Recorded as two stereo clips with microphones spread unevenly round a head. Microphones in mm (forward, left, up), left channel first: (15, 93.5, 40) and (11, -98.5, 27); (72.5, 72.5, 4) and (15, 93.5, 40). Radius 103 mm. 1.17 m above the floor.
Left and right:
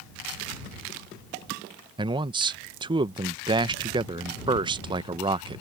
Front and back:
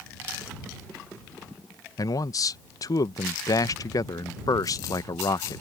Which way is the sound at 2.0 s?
25° right.